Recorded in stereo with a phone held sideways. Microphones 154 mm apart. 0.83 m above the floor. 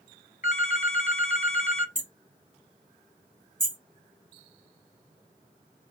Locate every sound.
0.4 s a phone ringing: 50° left (ahead or behind), 1.1 m
1.9 s hammering: 60° right (ahead or behind), 2 m